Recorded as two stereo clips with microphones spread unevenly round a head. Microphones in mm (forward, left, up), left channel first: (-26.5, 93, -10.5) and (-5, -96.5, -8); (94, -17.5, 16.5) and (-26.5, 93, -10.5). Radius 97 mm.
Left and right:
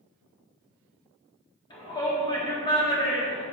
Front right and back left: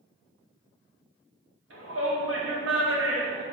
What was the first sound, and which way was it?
A shout, 165° left.